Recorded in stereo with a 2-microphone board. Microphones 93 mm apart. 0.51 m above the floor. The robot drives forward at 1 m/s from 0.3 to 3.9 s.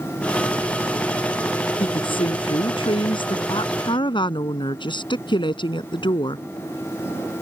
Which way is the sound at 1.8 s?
80° left.